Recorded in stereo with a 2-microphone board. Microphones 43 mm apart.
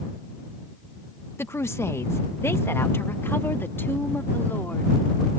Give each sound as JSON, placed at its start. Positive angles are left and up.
{"t": 1.4, "sound": "a woman speaking", "side_deg": 65}